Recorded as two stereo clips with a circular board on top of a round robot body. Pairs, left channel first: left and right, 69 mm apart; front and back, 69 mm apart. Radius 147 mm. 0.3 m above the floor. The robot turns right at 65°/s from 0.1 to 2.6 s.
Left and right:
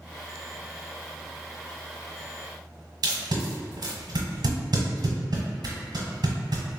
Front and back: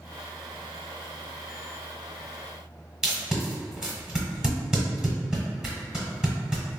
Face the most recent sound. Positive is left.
turn(degrees=-100)